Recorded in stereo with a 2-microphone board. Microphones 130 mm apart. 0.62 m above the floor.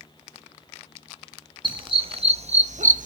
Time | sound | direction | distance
1.6 | a dog barking | 40° right (ahead or behind) | 1.7 m